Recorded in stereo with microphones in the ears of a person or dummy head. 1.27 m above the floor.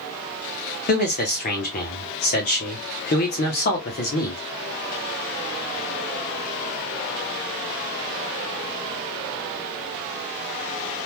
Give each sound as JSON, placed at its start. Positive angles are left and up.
{"t": 0.9, "sound": "a man speaking", "side_deg": 45, "distance_m": 0.8}